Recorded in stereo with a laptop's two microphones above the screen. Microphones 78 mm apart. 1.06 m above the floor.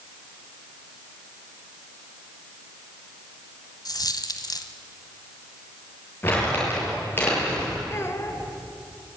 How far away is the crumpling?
About 7.5 m.